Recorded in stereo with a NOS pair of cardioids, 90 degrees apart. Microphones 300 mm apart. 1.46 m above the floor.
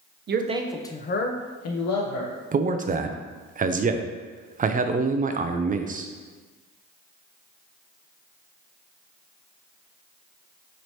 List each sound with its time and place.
0.3 s a man speaking: 35° right, 0.7 m; by 2.3 s 70° left, 1.5 m
2.5 s a man speaking: 25° right, 0.5 m